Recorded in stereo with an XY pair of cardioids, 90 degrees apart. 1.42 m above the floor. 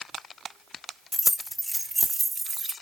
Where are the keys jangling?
20° left, 1.1 m; by 2.7 s 50° right, 1.1 m.